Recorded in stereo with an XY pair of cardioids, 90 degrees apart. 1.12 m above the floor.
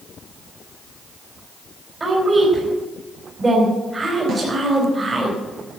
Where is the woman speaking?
30° right, 5 m.